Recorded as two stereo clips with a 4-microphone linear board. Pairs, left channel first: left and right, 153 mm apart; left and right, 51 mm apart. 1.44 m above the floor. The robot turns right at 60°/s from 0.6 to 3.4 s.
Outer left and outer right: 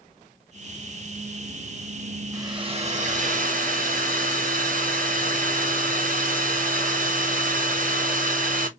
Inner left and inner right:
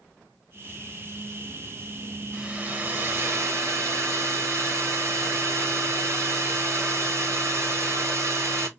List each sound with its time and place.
2.3 s a hair dryer: 160° right, 1.1 m; by 8.7 s 95° right, 1.1 m